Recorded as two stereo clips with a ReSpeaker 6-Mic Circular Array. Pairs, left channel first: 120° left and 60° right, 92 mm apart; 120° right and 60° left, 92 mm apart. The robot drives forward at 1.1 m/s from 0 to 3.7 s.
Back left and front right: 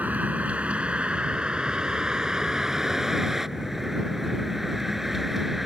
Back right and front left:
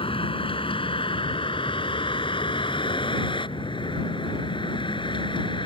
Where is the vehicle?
135° right; by 5.7 s 150° right.